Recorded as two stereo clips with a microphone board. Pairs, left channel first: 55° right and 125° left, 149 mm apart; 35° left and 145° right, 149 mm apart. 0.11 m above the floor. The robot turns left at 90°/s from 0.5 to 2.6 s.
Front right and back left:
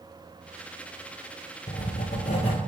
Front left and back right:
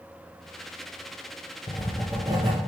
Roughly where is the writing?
Ahead right.